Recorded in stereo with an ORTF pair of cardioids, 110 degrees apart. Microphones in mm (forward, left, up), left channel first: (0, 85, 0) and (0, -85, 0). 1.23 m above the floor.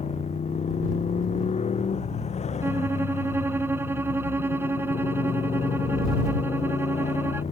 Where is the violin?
15° right.